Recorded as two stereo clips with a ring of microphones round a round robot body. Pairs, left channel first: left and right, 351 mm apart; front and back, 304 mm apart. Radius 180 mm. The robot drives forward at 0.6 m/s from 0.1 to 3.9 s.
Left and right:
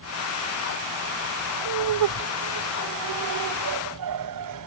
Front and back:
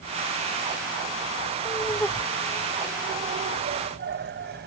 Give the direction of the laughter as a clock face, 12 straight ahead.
3 o'clock.